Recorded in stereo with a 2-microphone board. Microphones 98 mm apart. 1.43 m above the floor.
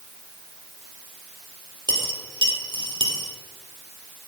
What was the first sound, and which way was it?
A dropped coin, 50° right (ahead or behind).